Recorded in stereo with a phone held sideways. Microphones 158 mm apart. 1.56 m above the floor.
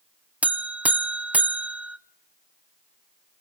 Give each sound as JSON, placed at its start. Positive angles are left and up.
{"t": 0.4, "sound": "a buzzer", "side_deg": -10, "distance_m": 0.5}